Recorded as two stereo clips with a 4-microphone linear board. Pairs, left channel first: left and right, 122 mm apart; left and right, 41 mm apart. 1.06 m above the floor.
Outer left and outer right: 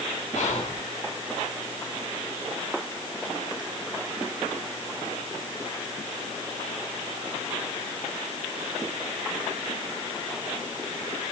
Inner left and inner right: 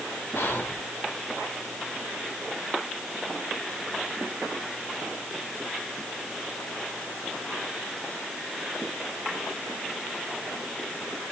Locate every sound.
0.3 s whispering: 70° left (ahead or behind), 3.5 m